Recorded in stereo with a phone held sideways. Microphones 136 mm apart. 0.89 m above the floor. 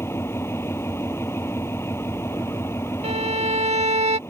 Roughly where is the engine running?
Centre.